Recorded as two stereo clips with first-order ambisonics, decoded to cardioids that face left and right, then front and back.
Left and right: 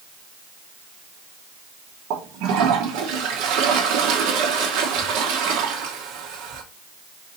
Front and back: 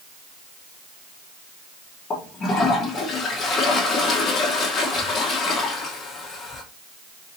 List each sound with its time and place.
2.1 s a toilet flushing: 65° right, 1.2 m